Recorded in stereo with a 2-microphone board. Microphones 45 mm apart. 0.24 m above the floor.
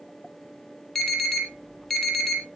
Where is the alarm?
5° left (ahead or behind), 6.5 m.